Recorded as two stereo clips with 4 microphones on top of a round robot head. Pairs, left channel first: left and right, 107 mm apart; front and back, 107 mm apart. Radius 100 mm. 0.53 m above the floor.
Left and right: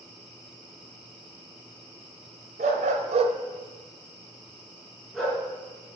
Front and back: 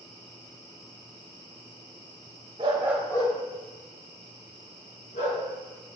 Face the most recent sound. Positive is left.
turn(degrees=5)